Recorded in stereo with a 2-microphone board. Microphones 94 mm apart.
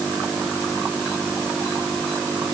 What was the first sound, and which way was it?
Only background noise.